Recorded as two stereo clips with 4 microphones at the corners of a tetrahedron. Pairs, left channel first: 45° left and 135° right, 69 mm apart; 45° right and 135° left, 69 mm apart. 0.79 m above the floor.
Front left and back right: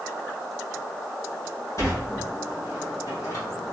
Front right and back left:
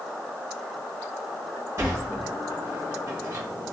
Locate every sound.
1.8 s a sliding door: 85° left, 1.5 m